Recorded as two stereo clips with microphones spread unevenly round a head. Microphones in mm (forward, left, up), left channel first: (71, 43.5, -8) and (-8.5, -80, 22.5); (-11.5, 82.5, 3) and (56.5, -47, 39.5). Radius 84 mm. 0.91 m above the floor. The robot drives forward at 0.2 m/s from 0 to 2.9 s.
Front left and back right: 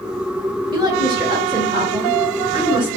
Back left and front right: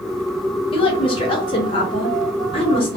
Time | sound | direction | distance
0.7 | a woman speaking | 170° left | 0.8 m